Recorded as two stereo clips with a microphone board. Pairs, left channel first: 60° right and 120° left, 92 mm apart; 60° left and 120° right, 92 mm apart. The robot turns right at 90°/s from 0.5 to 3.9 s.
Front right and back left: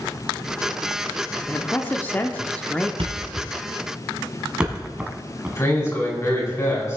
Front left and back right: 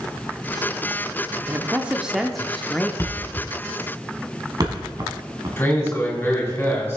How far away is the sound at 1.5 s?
About 0.7 m.